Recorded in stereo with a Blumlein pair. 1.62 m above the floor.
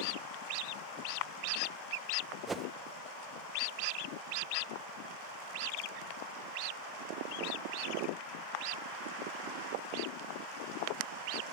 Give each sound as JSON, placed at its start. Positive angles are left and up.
{"t": 2.5, "sound": "a whoosh", "azimuth_deg": -15, "distance_m": 0.7}